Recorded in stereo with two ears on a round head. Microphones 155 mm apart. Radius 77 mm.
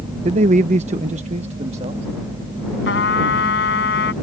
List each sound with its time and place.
0.2 s a man speaking: 40° right (ahead or behind); by 2.1 s 35° right (ahead or behind)
2.9 s a trumpet: 65° left (ahead or behind)